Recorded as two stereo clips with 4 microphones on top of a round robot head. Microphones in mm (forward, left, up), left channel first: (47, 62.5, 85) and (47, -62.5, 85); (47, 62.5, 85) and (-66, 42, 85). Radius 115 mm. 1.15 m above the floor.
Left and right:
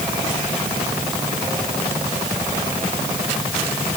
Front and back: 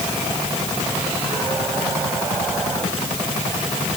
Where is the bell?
No bell in this recording.